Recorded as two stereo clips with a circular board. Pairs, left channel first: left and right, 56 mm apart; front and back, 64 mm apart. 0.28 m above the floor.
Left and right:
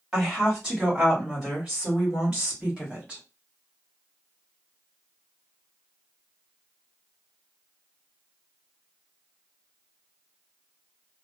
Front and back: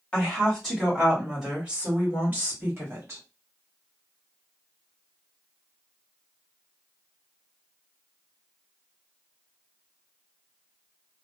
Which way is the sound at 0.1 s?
35° right.